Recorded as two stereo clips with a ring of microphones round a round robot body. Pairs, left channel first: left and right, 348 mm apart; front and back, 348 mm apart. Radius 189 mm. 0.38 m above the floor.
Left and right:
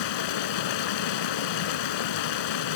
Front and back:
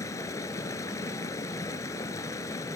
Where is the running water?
80° left, 0.9 m.